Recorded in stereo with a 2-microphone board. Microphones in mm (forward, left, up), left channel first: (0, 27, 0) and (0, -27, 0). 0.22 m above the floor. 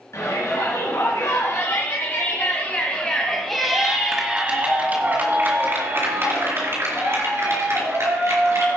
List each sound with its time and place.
0.1 s a shout: 65° left (ahead or behind), 3.5 m; by 8.8 s 60° right (ahead or behind), 5 m